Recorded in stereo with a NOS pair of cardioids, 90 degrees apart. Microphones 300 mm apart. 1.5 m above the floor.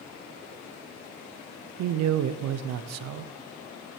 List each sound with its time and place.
1.8 s a man speaking: 60° right, 0.6 m